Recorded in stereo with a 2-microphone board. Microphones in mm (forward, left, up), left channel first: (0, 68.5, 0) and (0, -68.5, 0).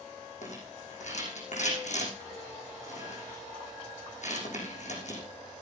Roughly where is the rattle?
Left.